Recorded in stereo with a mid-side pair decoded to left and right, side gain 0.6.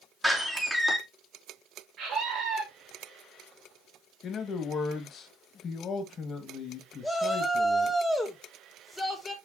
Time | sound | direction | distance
0.2 | a door slam | straight ahead | 2.5 m
2.0 | a scream | 55° right | 2.5 m
4.2 | a man speaking | 45° left | 1.9 m
7.0 | a shout | 10° left | 2.5 m